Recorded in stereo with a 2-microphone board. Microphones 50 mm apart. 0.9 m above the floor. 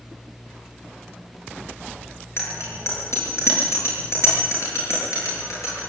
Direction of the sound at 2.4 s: 60° left (ahead or behind).